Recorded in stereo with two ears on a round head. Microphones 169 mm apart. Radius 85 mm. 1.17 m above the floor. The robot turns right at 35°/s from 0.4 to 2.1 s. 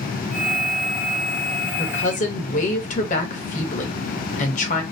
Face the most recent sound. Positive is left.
turn(degrees=40)  # may be behind; listen again after turning